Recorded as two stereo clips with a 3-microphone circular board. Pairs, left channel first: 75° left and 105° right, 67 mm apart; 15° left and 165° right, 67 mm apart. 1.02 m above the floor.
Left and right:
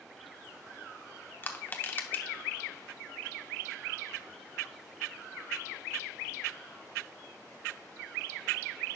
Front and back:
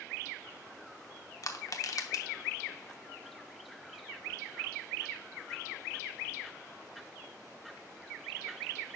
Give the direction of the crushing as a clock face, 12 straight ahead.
11 o'clock.